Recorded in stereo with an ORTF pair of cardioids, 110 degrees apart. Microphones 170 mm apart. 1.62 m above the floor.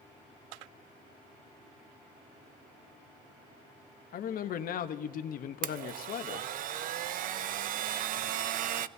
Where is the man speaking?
55° left, 0.9 m.